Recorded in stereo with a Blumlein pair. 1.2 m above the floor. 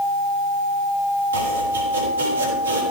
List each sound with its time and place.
1.3 s chopping: 70° right, 3.5 m